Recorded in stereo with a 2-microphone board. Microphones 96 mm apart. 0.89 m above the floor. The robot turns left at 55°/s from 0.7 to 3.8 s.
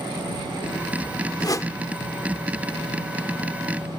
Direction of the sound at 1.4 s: 45° left (ahead or behind).